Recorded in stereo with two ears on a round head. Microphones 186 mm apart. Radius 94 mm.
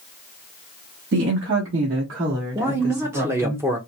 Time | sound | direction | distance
1.1 | a woman speaking | 65° right (ahead or behind) | 0.9 m
2.5 | a man speaking | 10° right (ahead or behind) | 0.5 m